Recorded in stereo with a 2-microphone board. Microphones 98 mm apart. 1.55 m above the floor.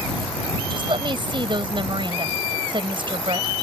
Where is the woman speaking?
55° right (ahead or behind).